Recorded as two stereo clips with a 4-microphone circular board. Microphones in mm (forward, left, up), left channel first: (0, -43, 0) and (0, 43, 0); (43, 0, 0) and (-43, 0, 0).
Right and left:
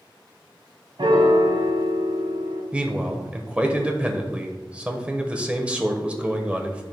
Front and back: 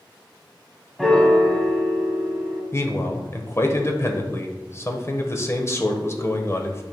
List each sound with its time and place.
1.0 s a piano: 85° left, 1.1 m
2.7 s a man speaking: 25° left, 1.0 m